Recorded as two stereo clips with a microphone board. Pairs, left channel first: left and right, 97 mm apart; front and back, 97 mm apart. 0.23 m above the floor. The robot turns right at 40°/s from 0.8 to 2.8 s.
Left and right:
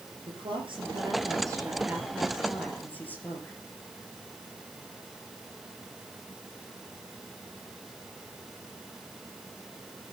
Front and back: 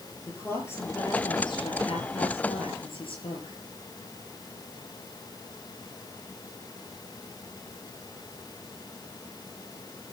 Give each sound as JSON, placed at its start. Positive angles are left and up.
{"t": 0.3, "sound": "a woman speaking", "azimuth_deg": -65, "distance_m": 4.5}